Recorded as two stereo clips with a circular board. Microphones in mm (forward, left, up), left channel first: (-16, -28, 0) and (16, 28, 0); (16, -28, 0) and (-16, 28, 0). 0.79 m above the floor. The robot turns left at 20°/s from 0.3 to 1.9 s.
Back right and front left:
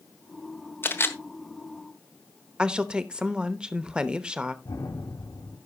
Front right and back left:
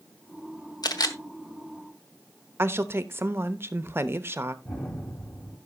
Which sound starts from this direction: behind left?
A woman speaking, at 2.6 s.